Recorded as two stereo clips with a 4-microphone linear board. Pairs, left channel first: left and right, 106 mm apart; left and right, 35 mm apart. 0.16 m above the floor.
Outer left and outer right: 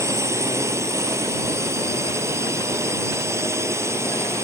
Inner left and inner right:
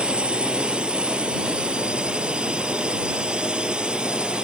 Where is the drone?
25° right (ahead or behind).